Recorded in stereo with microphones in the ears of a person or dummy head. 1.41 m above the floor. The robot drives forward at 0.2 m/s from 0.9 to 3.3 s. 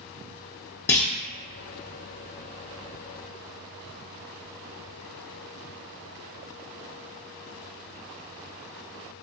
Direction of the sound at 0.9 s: 10° left (ahead or behind).